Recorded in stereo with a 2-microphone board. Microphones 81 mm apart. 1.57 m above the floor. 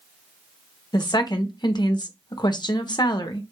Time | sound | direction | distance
0.9 | a woman speaking | 60° left (ahead or behind) | 0.8 m